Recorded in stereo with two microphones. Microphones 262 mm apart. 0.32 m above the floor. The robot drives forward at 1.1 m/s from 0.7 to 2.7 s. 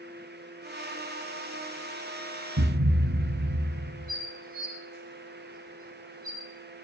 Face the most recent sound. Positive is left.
turn(degrees=-35)  # may be behind; listen again after turning